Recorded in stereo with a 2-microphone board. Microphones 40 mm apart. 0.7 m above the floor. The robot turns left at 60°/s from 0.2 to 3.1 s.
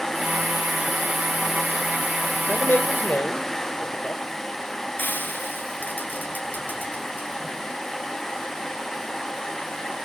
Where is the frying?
55° left (ahead or behind), 7.5 m.